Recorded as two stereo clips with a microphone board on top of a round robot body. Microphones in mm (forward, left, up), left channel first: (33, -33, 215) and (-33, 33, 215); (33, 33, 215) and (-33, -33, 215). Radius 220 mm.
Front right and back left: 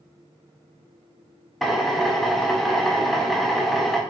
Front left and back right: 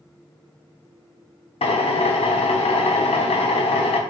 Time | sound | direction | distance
1.6 | a drill | 45° left | 0.5 m